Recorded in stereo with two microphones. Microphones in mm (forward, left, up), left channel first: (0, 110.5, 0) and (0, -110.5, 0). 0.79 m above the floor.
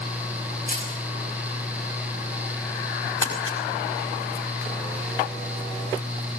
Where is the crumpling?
70° left (ahead or behind), 5.5 m.